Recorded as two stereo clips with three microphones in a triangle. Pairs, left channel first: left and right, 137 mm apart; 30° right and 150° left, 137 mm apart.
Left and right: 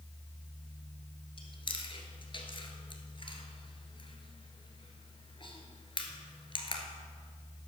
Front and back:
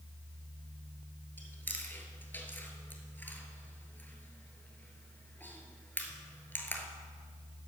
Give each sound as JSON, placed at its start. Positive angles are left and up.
{"t": 1.4, "sound": "chewing", "azimuth_deg": 45, "distance_m": 1.2}